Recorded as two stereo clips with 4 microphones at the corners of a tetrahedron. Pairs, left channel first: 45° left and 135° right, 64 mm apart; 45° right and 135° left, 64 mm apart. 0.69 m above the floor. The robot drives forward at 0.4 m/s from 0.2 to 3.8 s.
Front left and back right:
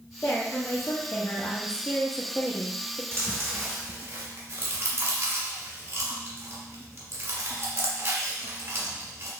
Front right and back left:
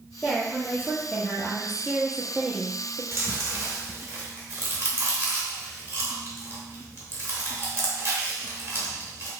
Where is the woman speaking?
25° left, 1.3 m; by 3.0 s 110° left, 0.9 m.